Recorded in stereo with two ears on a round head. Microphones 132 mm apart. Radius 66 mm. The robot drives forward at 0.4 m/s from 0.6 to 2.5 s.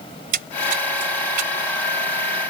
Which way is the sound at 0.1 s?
65° right (ahead or behind).